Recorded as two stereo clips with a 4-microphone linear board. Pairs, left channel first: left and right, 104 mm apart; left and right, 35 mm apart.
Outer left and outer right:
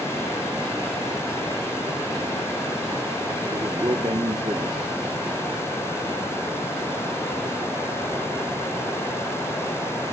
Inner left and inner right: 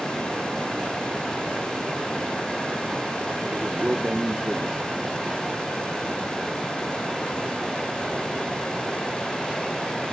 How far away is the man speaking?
About 1.4 m.